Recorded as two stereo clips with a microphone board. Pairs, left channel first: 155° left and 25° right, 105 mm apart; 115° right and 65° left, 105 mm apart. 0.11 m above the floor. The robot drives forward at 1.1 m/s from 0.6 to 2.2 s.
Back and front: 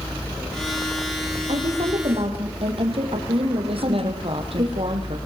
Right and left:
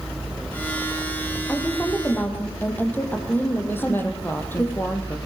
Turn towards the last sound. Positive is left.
turn(degrees=-45)